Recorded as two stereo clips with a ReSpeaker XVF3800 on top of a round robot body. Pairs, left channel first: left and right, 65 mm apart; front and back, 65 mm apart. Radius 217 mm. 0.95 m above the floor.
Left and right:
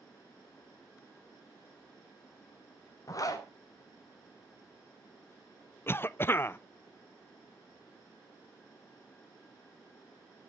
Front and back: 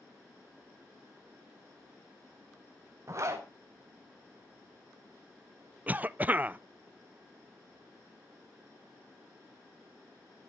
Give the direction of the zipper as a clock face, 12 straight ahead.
8 o'clock.